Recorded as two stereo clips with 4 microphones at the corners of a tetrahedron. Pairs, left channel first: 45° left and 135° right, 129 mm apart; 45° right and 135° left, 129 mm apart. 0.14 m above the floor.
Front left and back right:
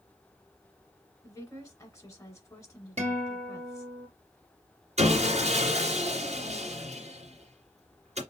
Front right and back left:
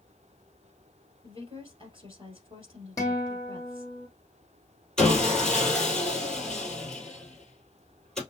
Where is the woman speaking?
105° left, 2 m.